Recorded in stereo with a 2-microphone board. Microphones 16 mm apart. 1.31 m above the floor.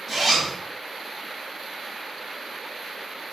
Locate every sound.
0.1 s a zipper: 5° right (ahead or behind), 0.8 m